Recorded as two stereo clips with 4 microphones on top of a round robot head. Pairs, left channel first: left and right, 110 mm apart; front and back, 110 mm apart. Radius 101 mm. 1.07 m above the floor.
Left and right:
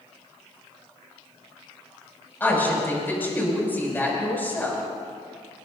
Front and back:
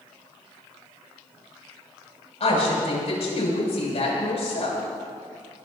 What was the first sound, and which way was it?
A woman speaking, 20° left.